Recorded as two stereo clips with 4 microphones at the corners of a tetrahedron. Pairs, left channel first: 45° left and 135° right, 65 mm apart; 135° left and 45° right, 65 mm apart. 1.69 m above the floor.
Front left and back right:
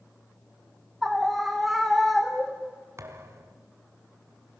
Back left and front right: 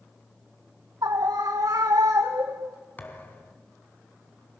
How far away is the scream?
About 1.7 m.